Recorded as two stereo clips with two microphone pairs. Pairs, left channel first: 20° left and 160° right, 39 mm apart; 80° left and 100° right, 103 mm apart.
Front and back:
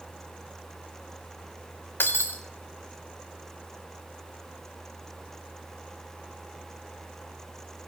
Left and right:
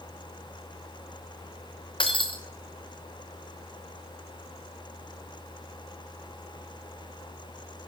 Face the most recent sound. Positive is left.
turn(degrees=45)